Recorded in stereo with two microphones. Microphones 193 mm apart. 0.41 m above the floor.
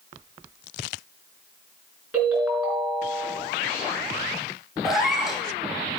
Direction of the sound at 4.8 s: Centre (ahead or behind).